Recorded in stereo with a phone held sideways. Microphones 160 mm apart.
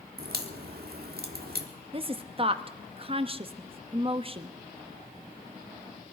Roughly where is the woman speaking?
Right.